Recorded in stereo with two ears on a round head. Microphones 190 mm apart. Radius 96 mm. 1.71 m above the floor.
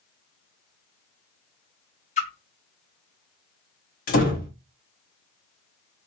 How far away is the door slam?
About 1.5 m.